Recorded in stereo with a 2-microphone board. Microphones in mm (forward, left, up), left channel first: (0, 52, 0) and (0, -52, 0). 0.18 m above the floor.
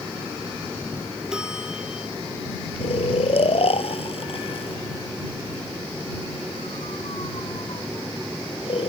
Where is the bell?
5° right (ahead or behind).